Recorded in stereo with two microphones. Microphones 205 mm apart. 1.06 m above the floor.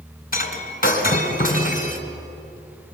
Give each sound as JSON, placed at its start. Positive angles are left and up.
{"t": 0.3, "sound": "breaking glass", "side_deg": 45, "distance_m": 2.5}